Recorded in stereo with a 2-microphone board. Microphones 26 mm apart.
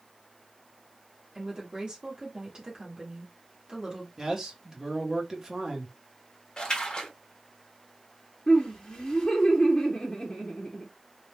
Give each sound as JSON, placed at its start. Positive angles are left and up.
{"t": 1.4, "sound": "a woman speaking", "side_deg": -40, "distance_m": 1.0}
{"t": 4.2, "sound": "a man speaking", "side_deg": -30, "distance_m": 0.9}
{"t": 6.6, "sound": "a splash", "side_deg": 35, "distance_m": 0.9}
{"t": 8.5, "sound": "laughter", "side_deg": 35, "distance_m": 0.8}